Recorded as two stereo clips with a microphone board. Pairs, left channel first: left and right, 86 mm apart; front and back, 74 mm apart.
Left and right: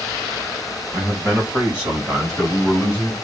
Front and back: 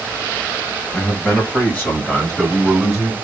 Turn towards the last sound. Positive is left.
turn(degrees=120)